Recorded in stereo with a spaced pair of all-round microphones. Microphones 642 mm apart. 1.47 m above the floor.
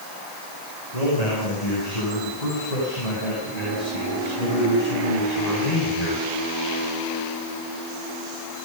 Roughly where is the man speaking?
Left.